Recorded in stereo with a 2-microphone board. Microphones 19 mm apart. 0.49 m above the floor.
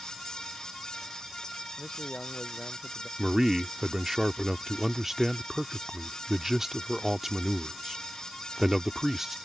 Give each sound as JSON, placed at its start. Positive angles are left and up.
{"t": 1.8, "sound": "a man speaking", "side_deg": 60}
{"t": 3.2, "sound": "a man speaking", "side_deg": -20}